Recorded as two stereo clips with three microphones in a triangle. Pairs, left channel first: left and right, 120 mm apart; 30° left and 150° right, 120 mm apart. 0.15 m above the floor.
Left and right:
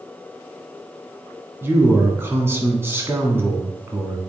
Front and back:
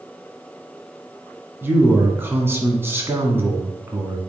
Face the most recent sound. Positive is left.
turn(degrees=-120)